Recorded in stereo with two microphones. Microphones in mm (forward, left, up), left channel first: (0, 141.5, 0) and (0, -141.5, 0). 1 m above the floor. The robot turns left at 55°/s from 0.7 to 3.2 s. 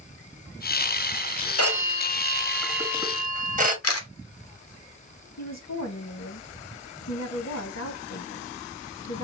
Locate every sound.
1.6 s a phone ringing: 60° left, 1.3 m; by 3.7 s 30° right, 1.3 m
3.8 s a camera shutter: 55° left (ahead or behind), 0.9 m
5.4 s a woman speaking: 60° left (ahead or behind), 1.3 m